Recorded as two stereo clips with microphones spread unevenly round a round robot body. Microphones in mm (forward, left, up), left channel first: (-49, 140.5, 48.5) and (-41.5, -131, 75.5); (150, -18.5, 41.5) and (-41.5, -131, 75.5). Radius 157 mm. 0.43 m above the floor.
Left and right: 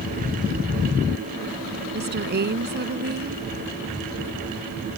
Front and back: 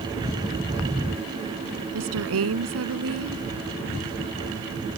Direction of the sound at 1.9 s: 140° right.